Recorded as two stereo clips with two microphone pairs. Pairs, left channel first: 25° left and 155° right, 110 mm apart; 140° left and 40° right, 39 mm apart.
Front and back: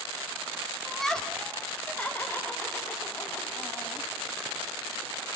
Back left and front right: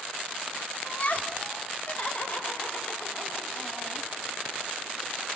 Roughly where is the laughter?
Behind left.